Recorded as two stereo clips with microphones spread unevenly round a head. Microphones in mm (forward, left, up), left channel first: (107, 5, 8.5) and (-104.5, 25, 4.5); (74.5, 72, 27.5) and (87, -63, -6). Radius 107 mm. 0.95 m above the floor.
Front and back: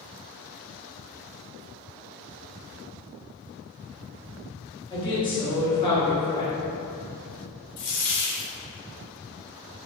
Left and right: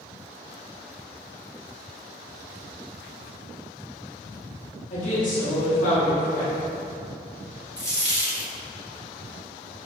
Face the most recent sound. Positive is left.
turn(degrees=30)